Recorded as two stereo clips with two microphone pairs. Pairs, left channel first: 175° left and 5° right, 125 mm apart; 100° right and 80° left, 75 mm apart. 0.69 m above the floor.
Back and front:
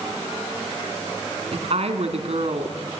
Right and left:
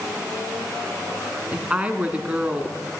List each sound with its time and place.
1.5 s a woman speaking: 20° left, 1.9 m